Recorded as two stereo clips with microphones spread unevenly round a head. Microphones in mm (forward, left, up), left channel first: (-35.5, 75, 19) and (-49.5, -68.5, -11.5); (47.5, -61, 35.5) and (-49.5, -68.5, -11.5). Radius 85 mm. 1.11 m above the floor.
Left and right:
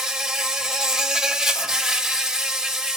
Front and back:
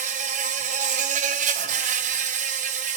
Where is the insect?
170° left, 1.4 m.